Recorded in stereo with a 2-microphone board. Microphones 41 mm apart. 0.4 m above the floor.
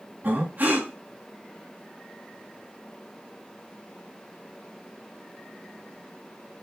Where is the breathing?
45° right (ahead or behind), 3 m.